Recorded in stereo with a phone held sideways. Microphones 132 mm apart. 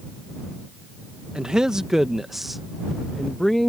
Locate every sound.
1.4 s a man speaking: 5° right (ahead or behind); by 3.7 s 5° left (ahead or behind)